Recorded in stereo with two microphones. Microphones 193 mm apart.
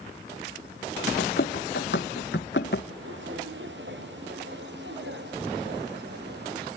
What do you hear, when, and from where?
1.2 s running footsteps: 60° left (ahead or behind), 1.4 m
2.9 s footsteps: 80° right, 2.5 m; by 6.7 s 60° right (ahead or behind), 4 m